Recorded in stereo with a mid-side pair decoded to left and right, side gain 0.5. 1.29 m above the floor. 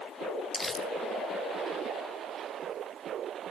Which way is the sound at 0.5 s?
10° left.